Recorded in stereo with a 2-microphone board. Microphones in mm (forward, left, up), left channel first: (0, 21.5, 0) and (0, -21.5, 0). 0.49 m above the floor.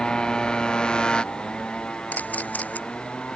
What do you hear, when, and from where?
0.0 s a motorcycle: 20° left (ahead or behind); by 3.4 s 25° left (ahead or behind)
2.1 s a camera shutter: 40° left (ahead or behind)